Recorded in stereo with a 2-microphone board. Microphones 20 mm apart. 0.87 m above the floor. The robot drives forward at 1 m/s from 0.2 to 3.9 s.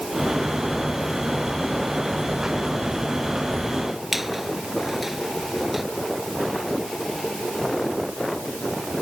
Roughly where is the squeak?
Centre.